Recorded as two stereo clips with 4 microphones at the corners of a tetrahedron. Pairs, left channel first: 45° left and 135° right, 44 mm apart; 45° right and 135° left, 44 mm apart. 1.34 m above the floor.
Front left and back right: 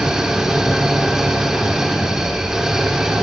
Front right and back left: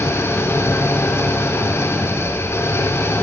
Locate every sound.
0.0 s an engine running: 55° right, 3.5 m